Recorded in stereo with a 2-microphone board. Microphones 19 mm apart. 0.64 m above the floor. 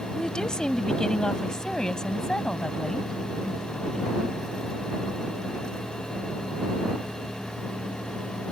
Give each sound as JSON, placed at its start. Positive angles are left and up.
{"t": 0.1, "sound": "a woman speaking", "side_deg": 50}